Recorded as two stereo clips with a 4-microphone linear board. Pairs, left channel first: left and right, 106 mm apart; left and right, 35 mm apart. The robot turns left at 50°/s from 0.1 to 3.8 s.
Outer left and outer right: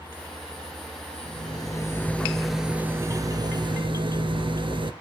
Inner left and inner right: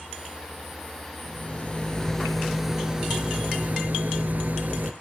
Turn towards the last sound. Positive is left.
turn(degrees=-65)